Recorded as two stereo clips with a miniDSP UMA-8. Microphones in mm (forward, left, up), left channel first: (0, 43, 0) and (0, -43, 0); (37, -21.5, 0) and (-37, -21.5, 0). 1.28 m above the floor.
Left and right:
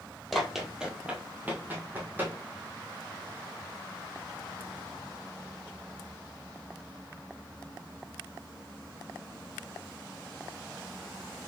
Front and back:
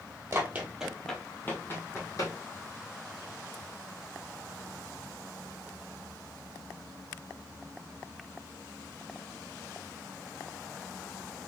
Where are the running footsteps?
Straight behind, 1.5 m; by 2.4 s 25° right, 2.5 m.